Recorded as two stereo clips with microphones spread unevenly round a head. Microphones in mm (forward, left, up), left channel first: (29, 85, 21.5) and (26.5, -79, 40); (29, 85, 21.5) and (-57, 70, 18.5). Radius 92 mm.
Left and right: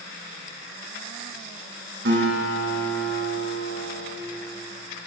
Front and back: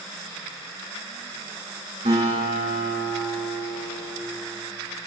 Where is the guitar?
125° right, 7.5 m.